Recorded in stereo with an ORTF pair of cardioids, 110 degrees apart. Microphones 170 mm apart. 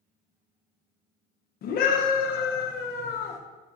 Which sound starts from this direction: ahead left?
A scream, at 1.6 s.